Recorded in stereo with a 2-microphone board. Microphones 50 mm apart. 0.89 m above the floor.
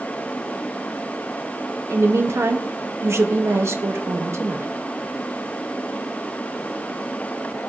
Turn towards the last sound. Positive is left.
turn(degrees=-55)  # may be behind; listen again after turning